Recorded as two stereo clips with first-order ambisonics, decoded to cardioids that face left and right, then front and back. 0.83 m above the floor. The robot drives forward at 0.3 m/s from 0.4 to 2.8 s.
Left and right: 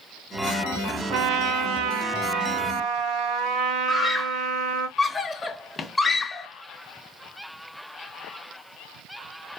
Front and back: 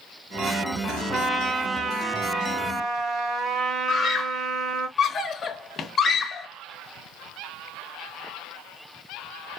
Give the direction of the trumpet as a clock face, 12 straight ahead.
3 o'clock.